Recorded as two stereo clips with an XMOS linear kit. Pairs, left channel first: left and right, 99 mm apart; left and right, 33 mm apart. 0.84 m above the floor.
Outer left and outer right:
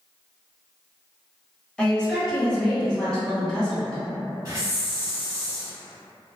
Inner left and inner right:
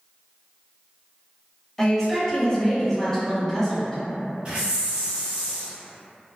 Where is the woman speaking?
10° left (ahead or behind), 1.2 m.